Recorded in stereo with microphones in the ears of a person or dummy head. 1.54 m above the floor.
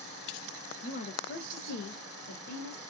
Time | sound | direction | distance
0.8 | a woman speaking | 40° left (ahead or behind) | 0.8 m